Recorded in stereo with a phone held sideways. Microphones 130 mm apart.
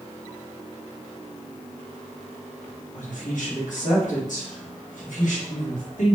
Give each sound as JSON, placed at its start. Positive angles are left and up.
{"t": 2.9, "sound": "a woman speaking", "side_deg": 75, "distance_m": 1.2}